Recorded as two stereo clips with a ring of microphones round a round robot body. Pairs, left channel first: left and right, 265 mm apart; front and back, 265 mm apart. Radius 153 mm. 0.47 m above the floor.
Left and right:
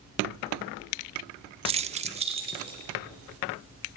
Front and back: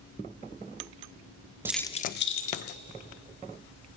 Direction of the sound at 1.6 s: 115° right.